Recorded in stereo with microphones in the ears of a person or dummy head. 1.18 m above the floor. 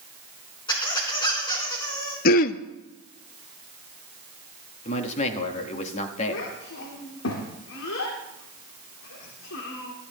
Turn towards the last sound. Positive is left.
turn(degrees=75)  # may be behind; listen again after turning